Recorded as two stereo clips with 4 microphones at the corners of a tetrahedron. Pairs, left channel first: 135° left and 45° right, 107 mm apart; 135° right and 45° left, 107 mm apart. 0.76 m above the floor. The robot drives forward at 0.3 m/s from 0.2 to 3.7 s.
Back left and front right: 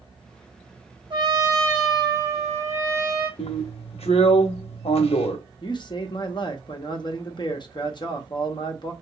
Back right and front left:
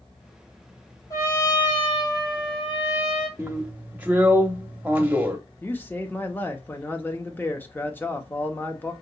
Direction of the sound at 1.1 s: 80° right.